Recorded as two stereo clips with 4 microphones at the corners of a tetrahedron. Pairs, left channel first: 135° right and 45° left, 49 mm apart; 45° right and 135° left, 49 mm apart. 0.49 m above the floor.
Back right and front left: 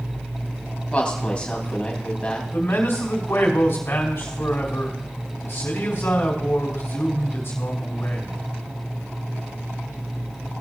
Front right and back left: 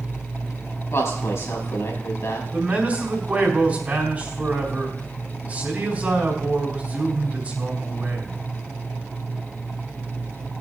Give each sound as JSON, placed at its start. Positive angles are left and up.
{"t": 0.9, "sound": "a woman speaking", "azimuth_deg": -65, "distance_m": 3.5}
{"t": 2.5, "sound": "a man speaking", "azimuth_deg": -165, "distance_m": 4.0}